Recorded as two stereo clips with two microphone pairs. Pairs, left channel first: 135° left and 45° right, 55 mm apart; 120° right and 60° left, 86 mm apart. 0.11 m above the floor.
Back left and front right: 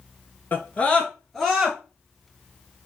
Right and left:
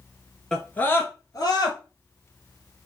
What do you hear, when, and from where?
0.5 s a scream: 160° left, 1.4 m; by 1.8 s 120° right, 1.8 m